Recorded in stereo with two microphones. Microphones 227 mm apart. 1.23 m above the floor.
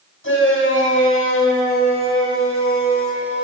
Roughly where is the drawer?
No drawer in this recording.